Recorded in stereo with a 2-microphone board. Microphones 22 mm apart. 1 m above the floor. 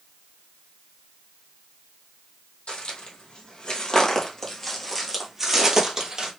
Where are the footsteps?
60° left (ahead or behind), 1.9 m; by 6.3 s 35° right (ahead or behind), 1.6 m.